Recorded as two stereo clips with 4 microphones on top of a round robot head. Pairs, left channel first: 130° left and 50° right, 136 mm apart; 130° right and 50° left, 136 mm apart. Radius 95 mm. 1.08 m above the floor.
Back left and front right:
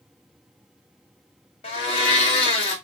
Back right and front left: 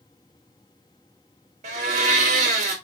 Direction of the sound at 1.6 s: 85° left.